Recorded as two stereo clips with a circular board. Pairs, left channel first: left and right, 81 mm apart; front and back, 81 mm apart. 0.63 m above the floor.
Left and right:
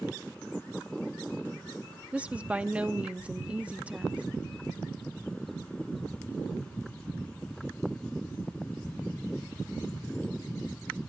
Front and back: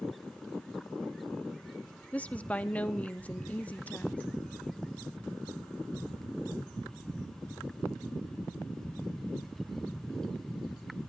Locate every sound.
2.1 s a woman speaking: 40° right, 0.7 m